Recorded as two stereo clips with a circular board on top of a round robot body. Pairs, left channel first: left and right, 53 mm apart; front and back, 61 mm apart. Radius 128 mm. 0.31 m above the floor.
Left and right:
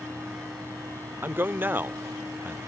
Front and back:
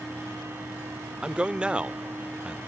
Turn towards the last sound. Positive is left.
turn(degrees=-115)